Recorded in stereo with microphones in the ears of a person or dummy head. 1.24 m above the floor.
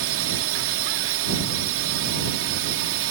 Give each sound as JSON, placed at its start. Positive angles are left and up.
{"t": 0.0, "sound": "a drone", "side_deg": -65}